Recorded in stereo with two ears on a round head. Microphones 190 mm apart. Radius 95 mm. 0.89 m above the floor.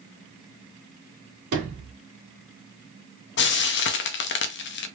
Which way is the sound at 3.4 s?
55° left (ahead or behind).